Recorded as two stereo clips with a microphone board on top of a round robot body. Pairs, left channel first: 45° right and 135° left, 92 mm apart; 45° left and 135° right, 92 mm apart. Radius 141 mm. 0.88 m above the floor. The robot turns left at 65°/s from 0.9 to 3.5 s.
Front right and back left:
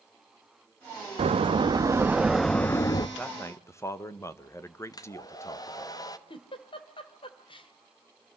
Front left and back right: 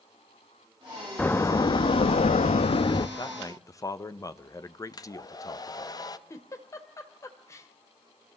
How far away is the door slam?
About 0.7 m.